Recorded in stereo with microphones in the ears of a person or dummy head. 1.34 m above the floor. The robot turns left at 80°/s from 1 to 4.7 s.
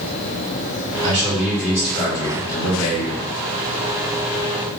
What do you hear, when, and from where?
1.0 s a man speaking: 140° right, 2 m; by 3.3 s 40° left, 2 m